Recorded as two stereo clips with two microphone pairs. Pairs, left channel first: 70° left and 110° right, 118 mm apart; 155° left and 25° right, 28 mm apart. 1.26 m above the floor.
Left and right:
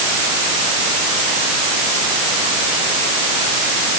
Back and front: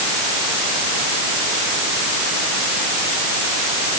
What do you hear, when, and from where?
Only background noise.